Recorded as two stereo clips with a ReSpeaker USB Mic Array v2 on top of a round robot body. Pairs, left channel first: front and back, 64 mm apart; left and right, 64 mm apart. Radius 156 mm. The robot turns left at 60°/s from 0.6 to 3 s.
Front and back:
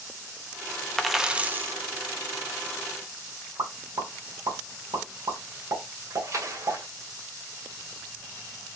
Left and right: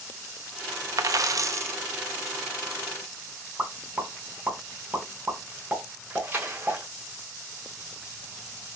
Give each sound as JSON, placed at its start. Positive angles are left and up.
{"t": 1.0, "sound": "a dropped coin", "azimuth_deg": -85, "distance_m": 0.7}
{"t": 3.6, "sound": "a pop", "azimuth_deg": -160, "distance_m": 1.9}
{"t": 6.1, "sound": "a splash", "azimuth_deg": -145, "distance_m": 1.8}